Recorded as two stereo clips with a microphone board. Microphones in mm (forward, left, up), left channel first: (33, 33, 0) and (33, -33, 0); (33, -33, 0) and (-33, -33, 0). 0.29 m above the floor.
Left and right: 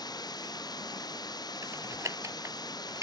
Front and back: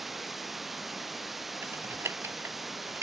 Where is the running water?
90° left.